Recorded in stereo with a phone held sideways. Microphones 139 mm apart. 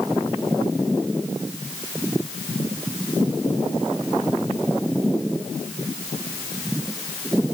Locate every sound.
Only background noise.